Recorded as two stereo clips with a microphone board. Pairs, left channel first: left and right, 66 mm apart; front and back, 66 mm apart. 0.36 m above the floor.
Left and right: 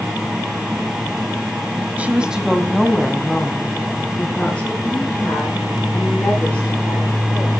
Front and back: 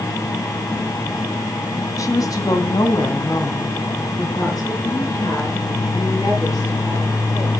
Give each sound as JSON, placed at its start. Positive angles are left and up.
{"t": 2.0, "sound": "a woman speaking", "azimuth_deg": -25, "distance_m": 1.7}